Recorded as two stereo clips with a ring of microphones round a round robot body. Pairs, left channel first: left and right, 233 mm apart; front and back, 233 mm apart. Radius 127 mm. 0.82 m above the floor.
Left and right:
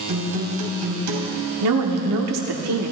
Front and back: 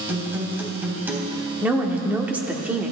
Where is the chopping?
No chopping in this recording.